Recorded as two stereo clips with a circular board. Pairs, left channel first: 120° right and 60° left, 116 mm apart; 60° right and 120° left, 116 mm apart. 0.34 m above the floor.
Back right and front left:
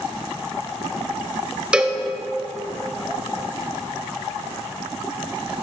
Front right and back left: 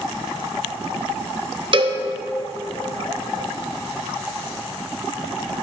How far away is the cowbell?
About 0.6 m.